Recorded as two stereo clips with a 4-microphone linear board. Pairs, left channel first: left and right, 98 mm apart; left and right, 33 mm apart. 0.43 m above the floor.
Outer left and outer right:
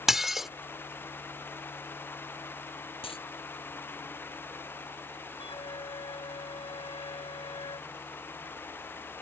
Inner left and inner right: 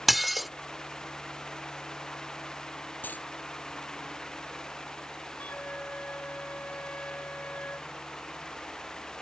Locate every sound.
0.1 s dishes clattering: 5° right (ahead or behind)
3.0 s a dropped coin: 70° left (ahead or behind)
5.4 s a flute: 65° left (ahead or behind)